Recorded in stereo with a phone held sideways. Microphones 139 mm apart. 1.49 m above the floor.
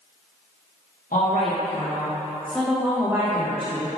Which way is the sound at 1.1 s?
75° left (ahead or behind).